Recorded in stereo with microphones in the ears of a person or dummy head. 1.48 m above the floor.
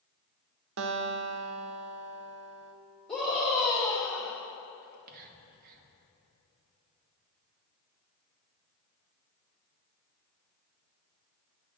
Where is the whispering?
40° right (ahead or behind), 0.8 m.